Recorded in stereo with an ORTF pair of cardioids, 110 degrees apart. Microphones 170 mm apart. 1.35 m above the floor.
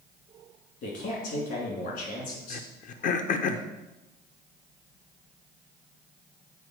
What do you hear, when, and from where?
0.8 s a man speaking: 65° left, 3 m
2.5 s throat clearing: 50° left, 0.7 m